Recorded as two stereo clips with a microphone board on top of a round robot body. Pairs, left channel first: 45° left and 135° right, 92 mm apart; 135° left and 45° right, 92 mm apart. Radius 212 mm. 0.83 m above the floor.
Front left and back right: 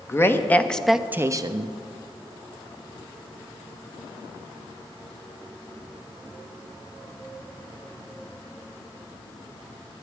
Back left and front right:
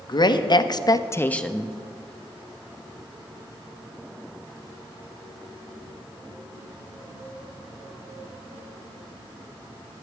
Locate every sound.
0.1 s a woman speaking: 105° left, 1.3 m; by 1.8 s 125° right, 1.0 m